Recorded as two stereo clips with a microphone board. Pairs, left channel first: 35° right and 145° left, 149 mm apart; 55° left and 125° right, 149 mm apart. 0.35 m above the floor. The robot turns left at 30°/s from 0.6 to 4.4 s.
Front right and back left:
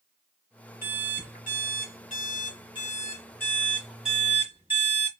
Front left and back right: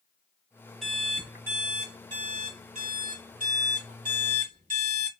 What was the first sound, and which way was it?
An alarm clock, 30° right.